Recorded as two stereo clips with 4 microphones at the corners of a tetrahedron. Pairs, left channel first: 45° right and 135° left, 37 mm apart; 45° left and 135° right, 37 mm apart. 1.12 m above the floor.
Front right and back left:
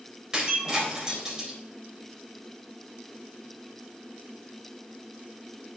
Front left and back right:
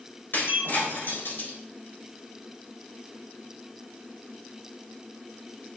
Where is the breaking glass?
65° left, 3.5 m.